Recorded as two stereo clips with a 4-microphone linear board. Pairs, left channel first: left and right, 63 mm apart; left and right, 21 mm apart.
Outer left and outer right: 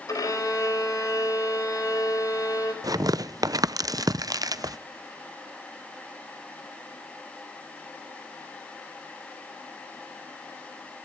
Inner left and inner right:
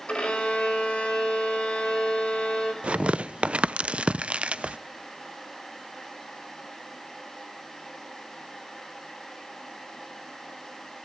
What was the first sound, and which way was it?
A violin, 70° left (ahead or behind).